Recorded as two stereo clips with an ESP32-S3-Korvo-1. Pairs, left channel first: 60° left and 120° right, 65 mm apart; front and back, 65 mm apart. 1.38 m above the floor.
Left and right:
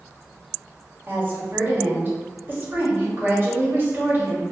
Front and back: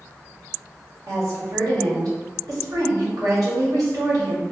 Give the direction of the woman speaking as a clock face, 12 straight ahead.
6 o'clock.